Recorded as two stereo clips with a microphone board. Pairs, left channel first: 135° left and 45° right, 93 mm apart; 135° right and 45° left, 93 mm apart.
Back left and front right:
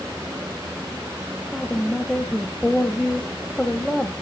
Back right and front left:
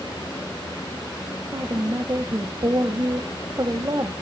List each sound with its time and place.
1.5 s a woman speaking: 50° left, 1.2 m